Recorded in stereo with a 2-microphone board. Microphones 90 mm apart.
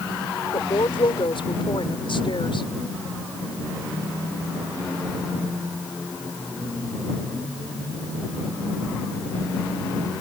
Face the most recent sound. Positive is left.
turn(degrees=70)  # may be behind; listen again after turning